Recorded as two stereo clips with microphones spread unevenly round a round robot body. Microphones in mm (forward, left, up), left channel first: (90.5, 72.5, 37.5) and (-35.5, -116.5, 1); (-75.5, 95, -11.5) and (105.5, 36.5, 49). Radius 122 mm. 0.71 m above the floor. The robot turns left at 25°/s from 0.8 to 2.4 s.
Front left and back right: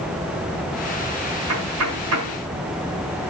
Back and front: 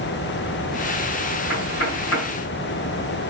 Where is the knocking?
145° right, 8 m; by 2.4 s 170° right, 8 m.